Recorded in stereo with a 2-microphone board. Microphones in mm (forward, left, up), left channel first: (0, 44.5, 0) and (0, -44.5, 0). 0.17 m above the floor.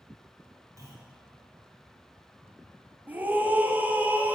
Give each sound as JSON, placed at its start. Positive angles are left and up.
{"t": 0.8, "sound": "a clunk", "side_deg": -35, "distance_m": 4.0}
{"t": 3.1, "sound": "a scream", "side_deg": -20, "distance_m": 1.2}